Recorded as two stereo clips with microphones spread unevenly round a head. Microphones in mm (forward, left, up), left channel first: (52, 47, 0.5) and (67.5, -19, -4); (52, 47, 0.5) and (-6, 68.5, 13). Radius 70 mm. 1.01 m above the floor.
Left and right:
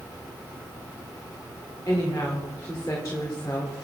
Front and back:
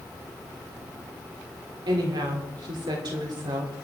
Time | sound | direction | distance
1.9 | a woman speaking | 175° left | 3.5 m